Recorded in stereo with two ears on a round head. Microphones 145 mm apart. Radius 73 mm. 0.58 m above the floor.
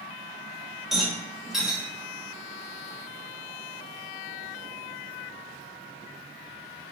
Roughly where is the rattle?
Centre.